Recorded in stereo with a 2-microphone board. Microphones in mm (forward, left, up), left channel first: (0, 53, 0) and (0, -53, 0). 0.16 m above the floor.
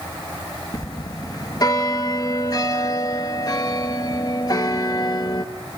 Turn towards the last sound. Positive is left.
turn(degrees=40)  # may be behind; listen again after turning